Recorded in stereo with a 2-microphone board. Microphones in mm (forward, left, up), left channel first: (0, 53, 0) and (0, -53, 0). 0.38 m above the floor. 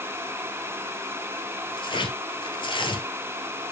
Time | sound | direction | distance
1.8 | tearing paper | 50° left (ahead or behind) | 2 m